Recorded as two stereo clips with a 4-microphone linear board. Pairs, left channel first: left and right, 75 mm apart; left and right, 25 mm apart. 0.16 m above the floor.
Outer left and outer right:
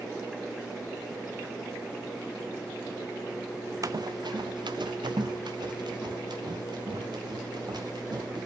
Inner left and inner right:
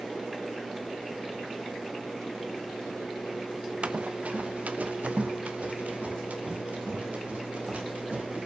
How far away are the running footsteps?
About 0.6 m.